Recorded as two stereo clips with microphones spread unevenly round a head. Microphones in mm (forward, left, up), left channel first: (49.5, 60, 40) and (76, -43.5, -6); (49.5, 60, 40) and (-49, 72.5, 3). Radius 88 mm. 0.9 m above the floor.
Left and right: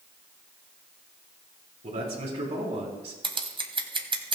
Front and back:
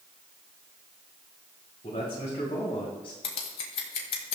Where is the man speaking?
65° right, 5.5 m; by 3.1 s 70° right, 4.5 m.